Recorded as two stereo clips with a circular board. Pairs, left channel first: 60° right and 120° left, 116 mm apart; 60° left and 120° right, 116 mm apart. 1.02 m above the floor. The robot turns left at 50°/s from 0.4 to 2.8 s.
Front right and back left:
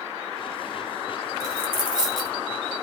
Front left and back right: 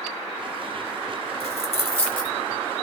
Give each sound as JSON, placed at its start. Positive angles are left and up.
{"t": 1.4, "sound": "a dropped coin", "azimuth_deg": 65, "distance_m": 0.8}